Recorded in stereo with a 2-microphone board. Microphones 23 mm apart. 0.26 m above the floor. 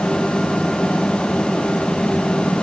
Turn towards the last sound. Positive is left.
No sound to turn to.